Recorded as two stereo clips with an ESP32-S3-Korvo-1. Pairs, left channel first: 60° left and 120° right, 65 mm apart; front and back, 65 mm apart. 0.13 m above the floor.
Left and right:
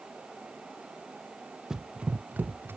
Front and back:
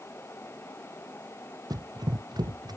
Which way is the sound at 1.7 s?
160° left.